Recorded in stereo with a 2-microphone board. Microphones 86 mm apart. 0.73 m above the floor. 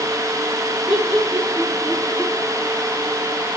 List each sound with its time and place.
0.9 s laughter: 5° right (ahead or behind), 5.5 m